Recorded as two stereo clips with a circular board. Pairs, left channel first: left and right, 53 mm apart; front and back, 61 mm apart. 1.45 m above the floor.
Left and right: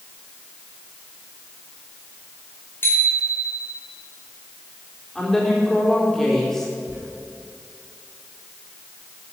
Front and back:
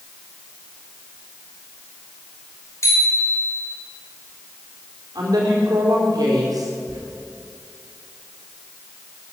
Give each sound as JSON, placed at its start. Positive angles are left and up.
{"t": 2.8, "sound": "a bicycle bell", "azimuth_deg": 40, "distance_m": 4.5}
{"t": 5.2, "sound": "a woman speaking", "azimuth_deg": 175, "distance_m": 4.0}
{"t": 6.9, "sound": "a squeak", "azimuth_deg": -150, "distance_m": 6.0}